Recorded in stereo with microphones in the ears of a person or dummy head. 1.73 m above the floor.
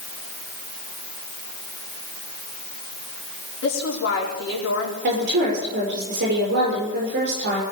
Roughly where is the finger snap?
No finger snap in this recording.